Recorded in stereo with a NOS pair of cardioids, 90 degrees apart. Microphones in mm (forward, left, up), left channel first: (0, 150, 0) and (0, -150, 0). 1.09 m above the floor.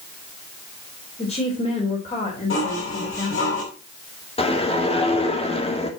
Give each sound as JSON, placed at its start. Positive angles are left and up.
{"t": 1.2, "sound": "a woman speaking", "azimuth_deg": 20, "distance_m": 4.0}
{"t": 2.5, "sound": "dishes clattering", "azimuth_deg": 45, "distance_m": 4.5}
{"t": 4.4, "sound": "a whoosh", "azimuth_deg": 20, "distance_m": 2.0}